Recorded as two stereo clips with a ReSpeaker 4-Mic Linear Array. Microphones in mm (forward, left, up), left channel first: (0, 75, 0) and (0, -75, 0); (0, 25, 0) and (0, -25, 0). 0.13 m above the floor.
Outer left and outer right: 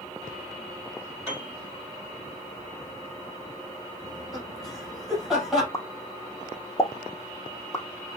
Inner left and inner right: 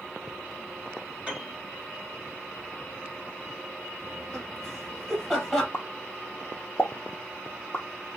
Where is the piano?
20° right (ahead or behind), 4.5 m.